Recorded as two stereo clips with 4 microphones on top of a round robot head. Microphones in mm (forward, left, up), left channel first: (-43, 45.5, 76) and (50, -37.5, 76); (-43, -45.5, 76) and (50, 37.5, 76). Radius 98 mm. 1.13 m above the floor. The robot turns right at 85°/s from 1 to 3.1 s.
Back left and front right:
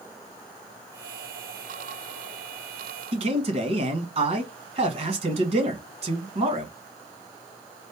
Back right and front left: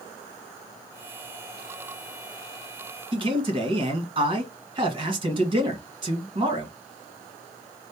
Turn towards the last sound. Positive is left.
turn(degrees=-5)